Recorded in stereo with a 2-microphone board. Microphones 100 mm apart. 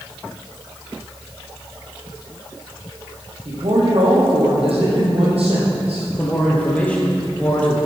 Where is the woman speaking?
70° right (ahead or behind), 5.5 m.